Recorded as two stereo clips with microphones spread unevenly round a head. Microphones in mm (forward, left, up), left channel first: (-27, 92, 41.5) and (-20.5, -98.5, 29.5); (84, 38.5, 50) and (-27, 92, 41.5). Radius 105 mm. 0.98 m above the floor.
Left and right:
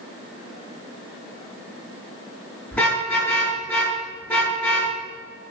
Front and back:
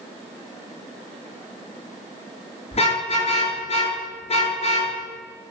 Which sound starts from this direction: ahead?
A car horn, at 2.7 s.